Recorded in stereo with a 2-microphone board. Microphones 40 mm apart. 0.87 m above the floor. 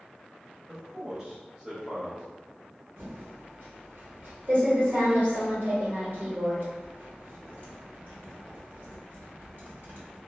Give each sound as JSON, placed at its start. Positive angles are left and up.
{"t": 0.7, "sound": "a man speaking", "side_deg": -15, "distance_m": 1.0}
{"t": 3.0, "sound": "typing on a keyboard", "side_deg": -50, "distance_m": 1.3}